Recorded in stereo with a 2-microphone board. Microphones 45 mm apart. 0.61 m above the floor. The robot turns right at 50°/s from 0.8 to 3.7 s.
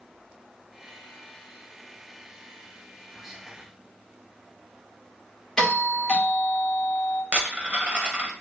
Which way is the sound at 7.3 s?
30° right (ahead or behind).